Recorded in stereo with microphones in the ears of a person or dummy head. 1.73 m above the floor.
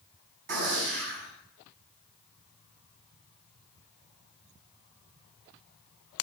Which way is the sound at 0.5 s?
65° right (ahead or behind).